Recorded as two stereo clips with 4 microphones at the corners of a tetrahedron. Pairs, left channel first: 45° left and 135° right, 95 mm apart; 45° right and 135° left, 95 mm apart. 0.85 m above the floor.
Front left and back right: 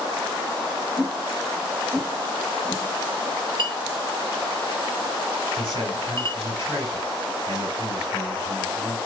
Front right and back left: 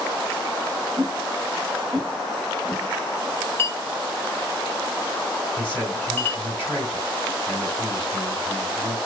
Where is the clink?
105° right, 0.5 m.